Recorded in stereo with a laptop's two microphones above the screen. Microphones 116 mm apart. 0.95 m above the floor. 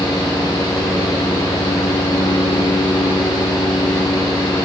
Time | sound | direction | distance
0.0 | a fan | 35° left (ahead or behind) | 1.2 m